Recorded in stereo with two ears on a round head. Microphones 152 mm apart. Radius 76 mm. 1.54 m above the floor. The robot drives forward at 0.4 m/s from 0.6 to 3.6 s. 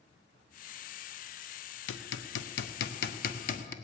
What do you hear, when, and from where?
1.9 s hammering: 80° left, 0.7 m; by 3.7 s 50° left (ahead or behind), 0.9 m